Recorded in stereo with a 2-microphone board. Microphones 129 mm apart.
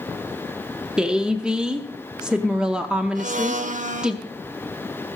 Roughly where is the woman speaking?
Centre.